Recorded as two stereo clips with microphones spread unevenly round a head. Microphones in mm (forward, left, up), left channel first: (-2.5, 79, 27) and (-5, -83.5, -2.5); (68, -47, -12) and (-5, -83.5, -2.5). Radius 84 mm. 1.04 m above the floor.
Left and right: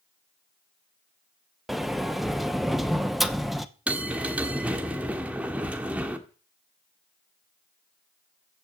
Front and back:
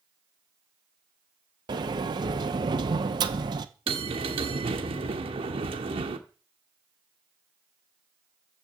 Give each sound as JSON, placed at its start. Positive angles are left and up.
{"t": 1.7, "sound": "a sliding door", "azimuth_deg": -170, "distance_m": 0.8}
{"t": 3.9, "sound": "a bell", "azimuth_deg": -175, "distance_m": 1.4}